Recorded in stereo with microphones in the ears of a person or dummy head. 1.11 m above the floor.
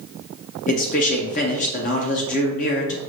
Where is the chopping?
No chopping in this recording.